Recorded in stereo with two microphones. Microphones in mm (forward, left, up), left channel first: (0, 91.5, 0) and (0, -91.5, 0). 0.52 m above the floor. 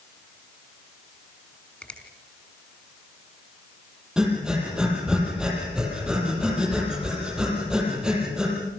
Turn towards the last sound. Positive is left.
turn(degrees=-5)  # may be behind; listen again after turning